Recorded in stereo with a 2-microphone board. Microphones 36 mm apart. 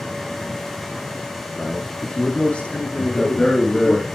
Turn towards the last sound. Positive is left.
turn(degrees=25)  # may be behind; listen again after turning